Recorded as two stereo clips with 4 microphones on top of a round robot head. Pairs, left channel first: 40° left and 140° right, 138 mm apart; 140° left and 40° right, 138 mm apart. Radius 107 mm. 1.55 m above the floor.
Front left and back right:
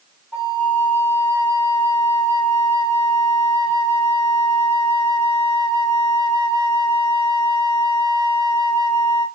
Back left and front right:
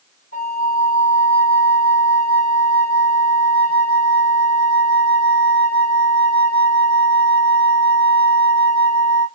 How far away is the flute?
About 1.6 m.